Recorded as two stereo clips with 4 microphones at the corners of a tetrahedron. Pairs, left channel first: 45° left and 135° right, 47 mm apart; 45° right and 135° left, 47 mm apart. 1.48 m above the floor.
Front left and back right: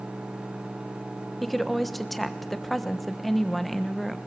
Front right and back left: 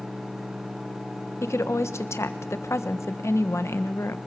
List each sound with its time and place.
1.4 s a woman speaking: 45° right, 1.3 m